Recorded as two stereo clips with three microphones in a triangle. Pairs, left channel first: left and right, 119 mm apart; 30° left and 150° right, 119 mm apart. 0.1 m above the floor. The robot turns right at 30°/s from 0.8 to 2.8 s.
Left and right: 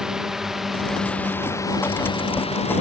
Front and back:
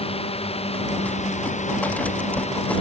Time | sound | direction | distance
0.0 | a drone | 5° right | ?